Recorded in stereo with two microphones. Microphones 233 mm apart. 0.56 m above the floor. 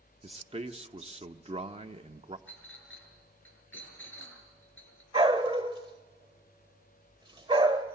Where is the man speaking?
25° right (ahead or behind), 1.0 m.